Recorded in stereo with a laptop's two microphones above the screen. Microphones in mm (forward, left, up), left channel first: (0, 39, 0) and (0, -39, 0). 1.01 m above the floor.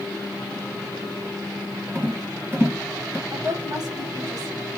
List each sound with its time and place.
1.9 s a rattle: 30° right (ahead or behind), 1.1 m
3.3 s a woman speaking: 55° right (ahead or behind), 1.5 m